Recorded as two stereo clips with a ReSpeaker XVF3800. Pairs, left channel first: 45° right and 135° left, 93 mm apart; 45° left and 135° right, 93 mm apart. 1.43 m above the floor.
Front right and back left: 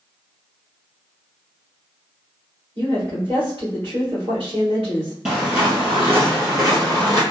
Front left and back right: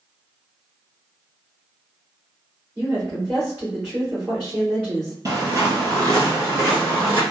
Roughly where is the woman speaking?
Behind.